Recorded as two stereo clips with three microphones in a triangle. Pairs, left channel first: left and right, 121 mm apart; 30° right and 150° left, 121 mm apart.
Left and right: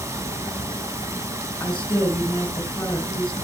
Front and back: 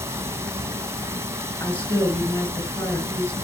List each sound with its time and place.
0.0 s running water: 150° right, 1.4 m
1.6 s a woman speaking: 15° left, 3 m